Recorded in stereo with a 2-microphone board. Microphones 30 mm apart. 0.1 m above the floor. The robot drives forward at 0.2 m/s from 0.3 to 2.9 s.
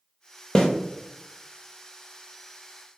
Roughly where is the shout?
No shout in this recording.